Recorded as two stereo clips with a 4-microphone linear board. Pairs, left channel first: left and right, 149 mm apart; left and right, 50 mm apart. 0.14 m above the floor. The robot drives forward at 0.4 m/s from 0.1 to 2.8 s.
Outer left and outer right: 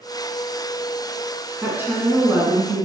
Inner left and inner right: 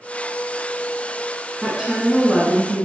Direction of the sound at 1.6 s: 15° right (ahead or behind).